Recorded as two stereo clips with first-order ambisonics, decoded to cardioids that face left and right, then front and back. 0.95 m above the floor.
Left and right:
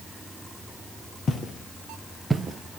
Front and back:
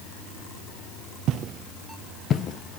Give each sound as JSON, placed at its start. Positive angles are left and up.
{"t": 1.3, "sound": "footsteps", "azimuth_deg": 150, "distance_m": 1.3}